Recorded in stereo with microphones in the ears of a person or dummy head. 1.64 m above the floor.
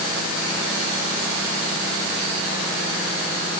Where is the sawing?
I don't hear sawing.